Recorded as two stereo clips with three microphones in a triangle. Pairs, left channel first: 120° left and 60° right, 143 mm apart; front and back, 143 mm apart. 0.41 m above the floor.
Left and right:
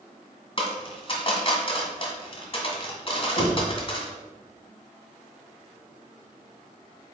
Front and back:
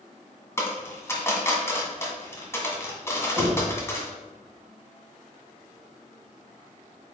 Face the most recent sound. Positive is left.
turn(degrees=120)